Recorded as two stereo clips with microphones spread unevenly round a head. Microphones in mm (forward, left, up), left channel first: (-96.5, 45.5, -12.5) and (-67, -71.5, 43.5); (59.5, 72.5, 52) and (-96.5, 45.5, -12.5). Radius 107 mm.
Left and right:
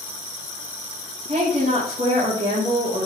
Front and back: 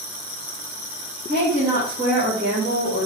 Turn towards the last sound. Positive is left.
turn(degrees=-115)